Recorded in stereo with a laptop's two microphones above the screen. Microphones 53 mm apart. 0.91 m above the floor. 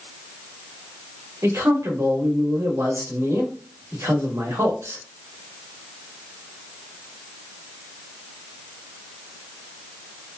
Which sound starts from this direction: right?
A man speaking, at 1.4 s.